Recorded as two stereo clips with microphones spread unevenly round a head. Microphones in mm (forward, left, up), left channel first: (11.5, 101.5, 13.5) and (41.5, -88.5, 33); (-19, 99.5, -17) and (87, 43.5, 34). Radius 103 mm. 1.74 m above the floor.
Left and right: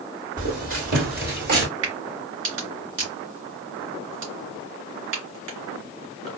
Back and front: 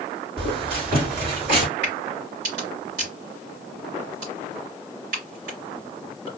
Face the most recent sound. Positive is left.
turn(degrees=-65)